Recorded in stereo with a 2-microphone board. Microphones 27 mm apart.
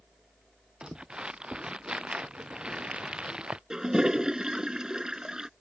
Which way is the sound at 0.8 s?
35° right (ahead or behind).